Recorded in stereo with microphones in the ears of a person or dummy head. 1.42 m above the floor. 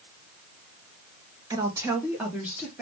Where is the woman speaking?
20° right (ahead or behind), 0.7 m; by 2.8 s 5° right (ahead or behind), 1.3 m.